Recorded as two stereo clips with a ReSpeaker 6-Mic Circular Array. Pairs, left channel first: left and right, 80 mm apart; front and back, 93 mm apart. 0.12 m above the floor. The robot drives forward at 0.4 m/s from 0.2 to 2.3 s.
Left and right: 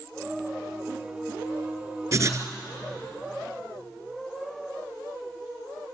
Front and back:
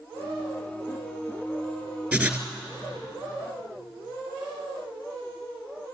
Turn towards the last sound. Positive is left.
turn(degrees=-120)